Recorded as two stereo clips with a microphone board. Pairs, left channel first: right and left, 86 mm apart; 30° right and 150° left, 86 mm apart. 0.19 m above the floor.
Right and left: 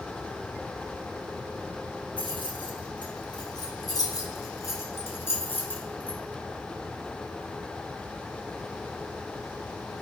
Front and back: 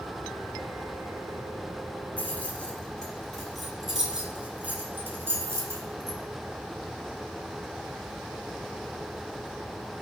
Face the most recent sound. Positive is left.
turn(degrees=-165)